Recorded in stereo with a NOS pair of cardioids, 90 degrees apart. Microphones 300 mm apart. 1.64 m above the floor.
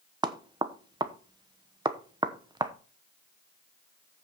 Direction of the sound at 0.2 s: 15° right.